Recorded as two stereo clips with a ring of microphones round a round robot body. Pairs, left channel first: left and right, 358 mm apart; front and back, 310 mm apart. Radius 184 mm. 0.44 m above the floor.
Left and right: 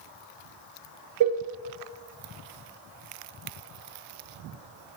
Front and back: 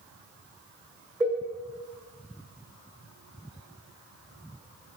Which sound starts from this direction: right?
A cowbell, at 1.2 s.